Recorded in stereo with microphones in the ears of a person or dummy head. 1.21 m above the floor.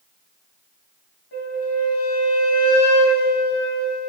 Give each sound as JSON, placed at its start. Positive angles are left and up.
{"t": 1.3, "sound": "a flute", "side_deg": 60, "distance_m": 4.5}